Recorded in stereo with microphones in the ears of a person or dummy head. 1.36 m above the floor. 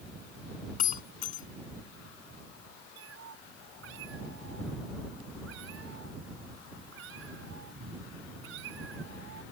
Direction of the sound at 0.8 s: 45° left (ahead or behind).